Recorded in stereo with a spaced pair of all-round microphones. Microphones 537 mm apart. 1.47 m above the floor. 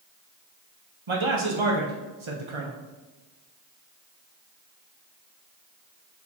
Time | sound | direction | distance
1.1 | a man speaking | 60° right (ahead or behind) | 1.0 m